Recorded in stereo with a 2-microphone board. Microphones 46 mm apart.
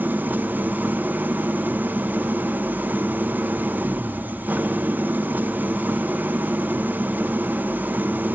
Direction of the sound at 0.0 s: 40° right (ahead or behind).